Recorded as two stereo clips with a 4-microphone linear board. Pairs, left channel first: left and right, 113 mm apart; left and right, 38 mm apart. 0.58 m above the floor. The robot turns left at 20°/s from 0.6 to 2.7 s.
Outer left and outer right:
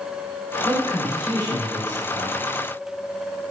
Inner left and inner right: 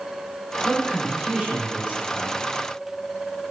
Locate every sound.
0.6 s a man speaking: 40° right, 1.1 m; by 2.4 s 75° right, 1.1 m